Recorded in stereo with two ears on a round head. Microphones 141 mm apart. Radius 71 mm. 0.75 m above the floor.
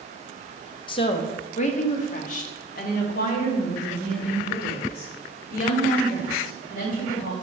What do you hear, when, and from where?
0.9 s a woman speaking: 30° left (ahead or behind), 0.6 m; by 7.3 s 60° left (ahead or behind), 4 m